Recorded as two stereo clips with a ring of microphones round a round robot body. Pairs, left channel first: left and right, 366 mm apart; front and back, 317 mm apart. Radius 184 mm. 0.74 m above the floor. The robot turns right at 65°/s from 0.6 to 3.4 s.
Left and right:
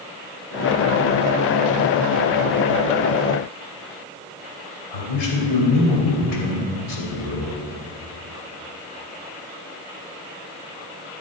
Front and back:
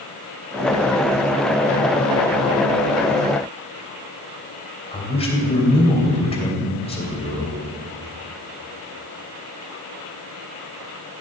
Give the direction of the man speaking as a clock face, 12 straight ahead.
10 o'clock.